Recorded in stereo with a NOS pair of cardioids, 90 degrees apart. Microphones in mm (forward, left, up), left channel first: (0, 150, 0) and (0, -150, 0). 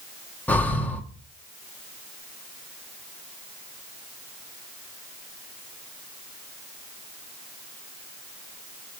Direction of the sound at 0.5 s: 5° left.